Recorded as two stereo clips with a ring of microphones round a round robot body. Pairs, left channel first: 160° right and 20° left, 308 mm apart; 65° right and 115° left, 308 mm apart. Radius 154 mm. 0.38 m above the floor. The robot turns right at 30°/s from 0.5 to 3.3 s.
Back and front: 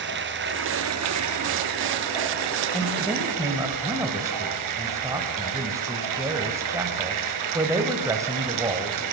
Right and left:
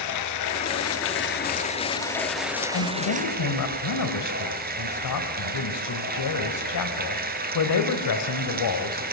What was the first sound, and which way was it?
Running water, 35° right.